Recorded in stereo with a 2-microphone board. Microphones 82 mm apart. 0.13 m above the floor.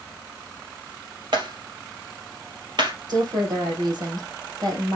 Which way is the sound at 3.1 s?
55° right (ahead or behind).